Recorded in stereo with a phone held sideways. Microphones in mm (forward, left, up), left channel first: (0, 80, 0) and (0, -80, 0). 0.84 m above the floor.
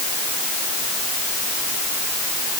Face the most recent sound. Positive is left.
No sound to turn to.